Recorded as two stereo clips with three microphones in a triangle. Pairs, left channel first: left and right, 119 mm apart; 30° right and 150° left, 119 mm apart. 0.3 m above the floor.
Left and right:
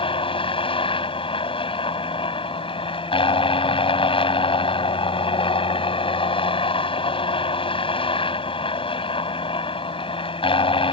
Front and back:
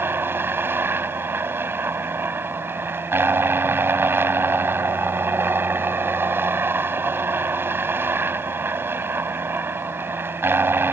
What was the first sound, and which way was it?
A helicopter, 85° left.